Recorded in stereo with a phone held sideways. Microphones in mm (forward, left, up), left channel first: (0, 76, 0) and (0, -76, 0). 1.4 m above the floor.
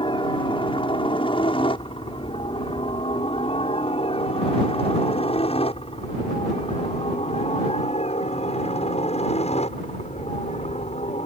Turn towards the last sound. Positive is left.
turn(degrees=45)  # may be behind; listen again after turning